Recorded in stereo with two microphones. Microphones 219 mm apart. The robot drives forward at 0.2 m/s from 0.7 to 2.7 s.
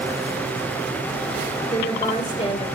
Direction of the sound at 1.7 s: 35° left (ahead or behind).